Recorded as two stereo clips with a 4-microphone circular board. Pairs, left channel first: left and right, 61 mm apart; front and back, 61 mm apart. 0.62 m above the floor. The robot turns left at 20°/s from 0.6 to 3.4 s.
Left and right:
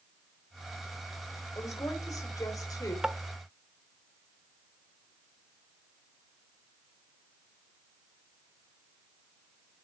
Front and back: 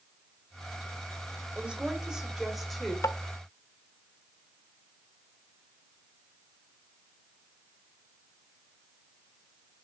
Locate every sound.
1.6 s a woman speaking: 110° left, 2.0 m; by 2.9 s 85° left, 2.0 m
3.0 s tapping: 10° right, 0.5 m; by 3.2 s 15° right, 0.5 m